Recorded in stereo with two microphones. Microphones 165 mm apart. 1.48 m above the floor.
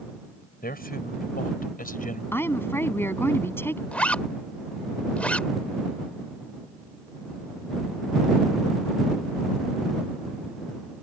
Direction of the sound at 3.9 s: 5° left (ahead or behind).